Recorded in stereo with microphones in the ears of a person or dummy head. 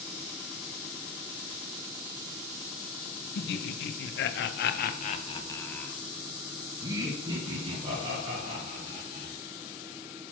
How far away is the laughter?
About 1.1 m.